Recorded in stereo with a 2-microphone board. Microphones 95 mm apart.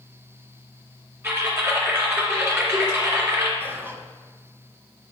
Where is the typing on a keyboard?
30° right (ahead or behind), 2.5 m.